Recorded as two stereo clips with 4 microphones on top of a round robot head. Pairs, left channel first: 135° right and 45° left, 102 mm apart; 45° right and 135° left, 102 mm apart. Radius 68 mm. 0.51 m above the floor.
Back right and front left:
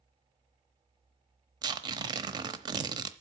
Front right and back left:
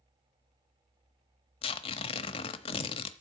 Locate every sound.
1.6 s tearing paper: 10° right, 0.9 m